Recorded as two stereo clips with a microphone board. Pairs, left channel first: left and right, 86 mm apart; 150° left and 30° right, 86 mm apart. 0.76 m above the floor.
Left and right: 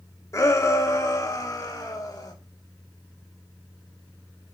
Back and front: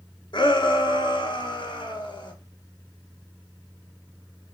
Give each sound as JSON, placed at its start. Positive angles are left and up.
{"t": 0.3, "sound": "a shout", "azimuth_deg": 140, "distance_m": 1.6}